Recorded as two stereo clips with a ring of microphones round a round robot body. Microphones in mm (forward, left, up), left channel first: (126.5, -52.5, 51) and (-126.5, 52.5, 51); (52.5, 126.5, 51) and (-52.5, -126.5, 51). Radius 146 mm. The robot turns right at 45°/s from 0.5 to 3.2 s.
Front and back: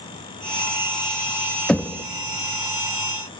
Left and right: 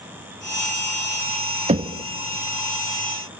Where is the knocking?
105° right, 0.5 m; by 2.0 s 90° right, 0.5 m.